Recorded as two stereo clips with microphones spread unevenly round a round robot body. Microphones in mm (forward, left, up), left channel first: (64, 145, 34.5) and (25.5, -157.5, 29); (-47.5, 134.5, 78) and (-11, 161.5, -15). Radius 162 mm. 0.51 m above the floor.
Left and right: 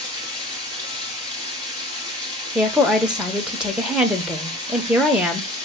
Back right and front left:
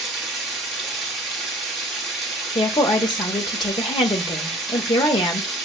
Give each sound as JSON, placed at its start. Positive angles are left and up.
{"t": 0.0, "sound": "running water", "azimuth_deg": -175, "distance_m": 1.0}
{"t": 2.5, "sound": "a woman speaking", "azimuth_deg": -15, "distance_m": 0.7}